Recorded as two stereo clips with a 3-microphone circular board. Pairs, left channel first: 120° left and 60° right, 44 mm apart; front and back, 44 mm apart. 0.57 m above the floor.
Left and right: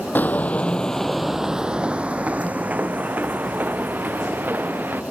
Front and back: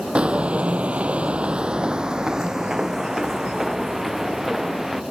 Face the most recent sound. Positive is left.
turn(degrees=-95)